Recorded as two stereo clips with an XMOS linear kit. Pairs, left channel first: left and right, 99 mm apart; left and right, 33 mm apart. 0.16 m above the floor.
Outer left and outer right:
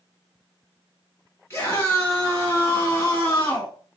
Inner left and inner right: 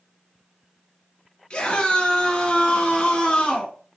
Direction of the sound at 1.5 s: 25° left (ahead or behind).